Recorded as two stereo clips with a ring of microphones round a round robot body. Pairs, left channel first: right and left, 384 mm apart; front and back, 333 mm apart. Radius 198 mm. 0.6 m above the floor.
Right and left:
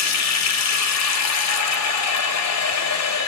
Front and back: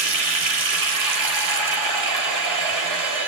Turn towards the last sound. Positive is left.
turn(degrees=-140)